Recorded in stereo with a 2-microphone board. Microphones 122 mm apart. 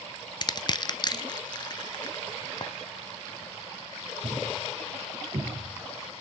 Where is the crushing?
35° left (ahead or behind), 0.6 m.